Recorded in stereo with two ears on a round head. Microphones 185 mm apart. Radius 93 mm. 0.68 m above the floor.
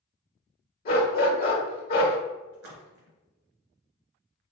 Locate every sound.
0.8 s a dog barking: 45° left (ahead or behind), 1.2 m
2.5 s a splash: 85° right, 1.9 m